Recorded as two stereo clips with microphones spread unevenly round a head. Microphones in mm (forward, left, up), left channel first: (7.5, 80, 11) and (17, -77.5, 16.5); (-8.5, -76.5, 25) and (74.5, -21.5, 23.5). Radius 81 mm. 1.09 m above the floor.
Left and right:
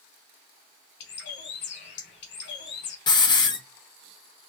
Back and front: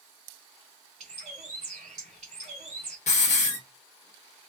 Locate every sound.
1.0 s a bird: 80° left, 1.4 m
3.1 s a hiss: 160° left, 0.8 m